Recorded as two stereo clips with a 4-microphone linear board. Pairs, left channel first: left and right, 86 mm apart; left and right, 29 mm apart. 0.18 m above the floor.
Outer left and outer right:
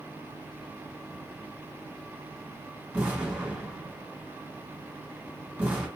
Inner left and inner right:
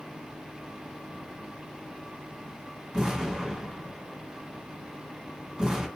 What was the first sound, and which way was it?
An explosion, 20° right (ahead or behind).